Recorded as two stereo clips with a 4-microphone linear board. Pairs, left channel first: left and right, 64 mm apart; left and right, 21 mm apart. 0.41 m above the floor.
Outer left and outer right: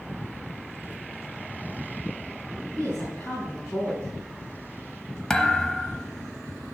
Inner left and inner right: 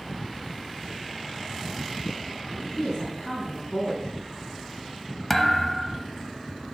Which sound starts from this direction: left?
A woman speaking, at 2.8 s.